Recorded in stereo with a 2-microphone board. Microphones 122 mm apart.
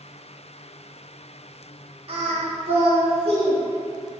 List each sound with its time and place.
2.1 s singing: 50° right (ahead or behind), 0.8 m